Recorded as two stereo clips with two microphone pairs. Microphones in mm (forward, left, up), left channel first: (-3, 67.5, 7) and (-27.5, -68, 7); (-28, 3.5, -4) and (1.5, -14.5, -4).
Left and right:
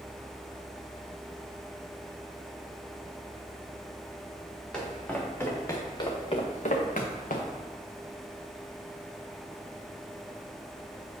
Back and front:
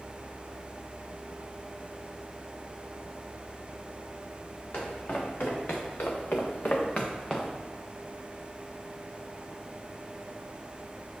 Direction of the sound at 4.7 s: 165° left.